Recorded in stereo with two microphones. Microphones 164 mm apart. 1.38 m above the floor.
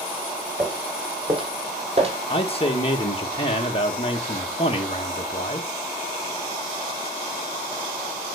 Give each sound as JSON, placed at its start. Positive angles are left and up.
{"t": 0.6, "sound": "footsteps", "side_deg": -25, "distance_m": 2.5}
{"t": 2.3, "sound": "a man speaking", "side_deg": 35, "distance_m": 1.5}